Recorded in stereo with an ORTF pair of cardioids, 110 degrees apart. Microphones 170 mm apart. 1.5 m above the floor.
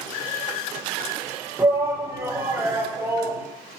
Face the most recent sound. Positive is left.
turn(degrees=-15)